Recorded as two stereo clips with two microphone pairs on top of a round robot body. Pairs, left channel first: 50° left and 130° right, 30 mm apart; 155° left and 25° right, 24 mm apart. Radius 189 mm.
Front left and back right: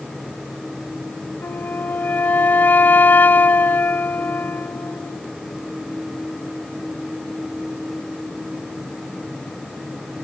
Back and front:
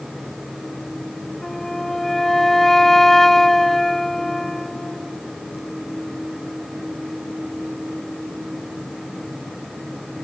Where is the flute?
70° left.